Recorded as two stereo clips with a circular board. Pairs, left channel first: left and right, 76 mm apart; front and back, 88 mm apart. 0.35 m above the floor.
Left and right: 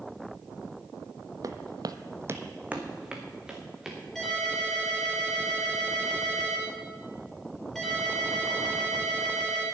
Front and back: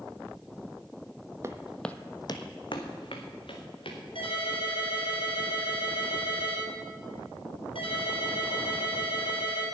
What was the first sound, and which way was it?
Footsteps, 125° right.